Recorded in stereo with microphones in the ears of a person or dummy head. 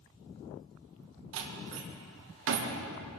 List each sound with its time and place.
1.3 s a door slam: 70° right (ahead or behind), 1.5 m